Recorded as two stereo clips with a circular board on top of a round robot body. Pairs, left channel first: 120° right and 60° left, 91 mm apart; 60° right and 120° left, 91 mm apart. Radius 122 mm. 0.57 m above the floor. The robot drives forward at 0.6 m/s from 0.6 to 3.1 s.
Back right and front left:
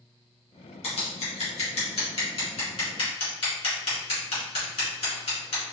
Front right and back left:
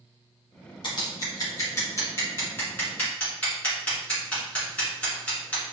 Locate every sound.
0.8 s scissors: 105° right, 1.8 m; by 5.7 s 135° right, 2.5 m